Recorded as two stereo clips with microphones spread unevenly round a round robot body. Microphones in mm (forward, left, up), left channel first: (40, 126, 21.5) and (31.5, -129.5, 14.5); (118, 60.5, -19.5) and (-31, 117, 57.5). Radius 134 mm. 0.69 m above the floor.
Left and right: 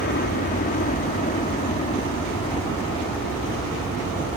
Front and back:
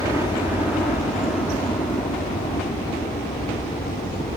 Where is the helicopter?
60° left; by 4.4 s 10° left.